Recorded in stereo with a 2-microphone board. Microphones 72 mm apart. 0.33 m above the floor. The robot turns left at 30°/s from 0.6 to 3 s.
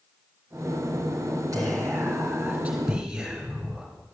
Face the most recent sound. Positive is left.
turn(degrees=-170)